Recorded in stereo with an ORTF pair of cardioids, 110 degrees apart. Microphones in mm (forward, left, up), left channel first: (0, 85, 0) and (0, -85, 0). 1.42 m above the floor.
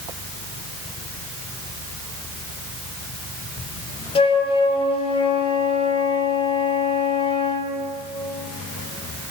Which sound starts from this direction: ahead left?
A flute, at 4.2 s.